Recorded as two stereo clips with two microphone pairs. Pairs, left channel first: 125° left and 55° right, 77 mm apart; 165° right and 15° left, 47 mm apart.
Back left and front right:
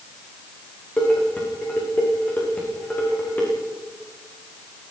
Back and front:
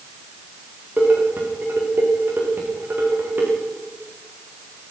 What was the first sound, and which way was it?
Dishes clattering, 65° left.